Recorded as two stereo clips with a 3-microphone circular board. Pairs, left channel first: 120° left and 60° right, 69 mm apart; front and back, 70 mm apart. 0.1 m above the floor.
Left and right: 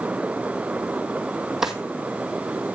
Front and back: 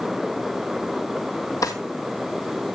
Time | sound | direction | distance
1.6 | a drawer | 25° left | 1.7 m